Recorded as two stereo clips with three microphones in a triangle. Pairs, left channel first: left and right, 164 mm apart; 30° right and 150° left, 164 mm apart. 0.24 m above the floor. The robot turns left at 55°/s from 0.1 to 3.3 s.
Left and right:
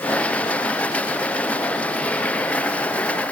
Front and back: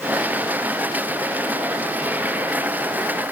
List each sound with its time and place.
Only background noise.